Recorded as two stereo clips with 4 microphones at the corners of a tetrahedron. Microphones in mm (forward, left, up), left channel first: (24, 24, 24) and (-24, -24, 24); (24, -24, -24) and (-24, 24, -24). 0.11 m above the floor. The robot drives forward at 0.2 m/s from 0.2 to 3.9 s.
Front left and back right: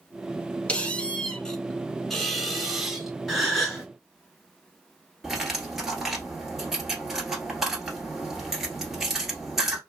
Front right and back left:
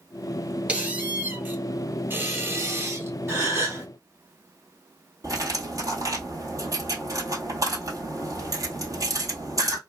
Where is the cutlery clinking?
145° left, 1.3 m.